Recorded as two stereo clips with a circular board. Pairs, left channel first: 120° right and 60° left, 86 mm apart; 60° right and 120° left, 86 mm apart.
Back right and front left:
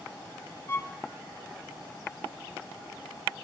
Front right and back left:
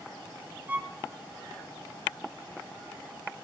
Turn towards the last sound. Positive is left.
turn(degrees=-175)